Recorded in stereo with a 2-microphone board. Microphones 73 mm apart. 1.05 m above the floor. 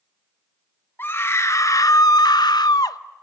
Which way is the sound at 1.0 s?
30° left (ahead or behind).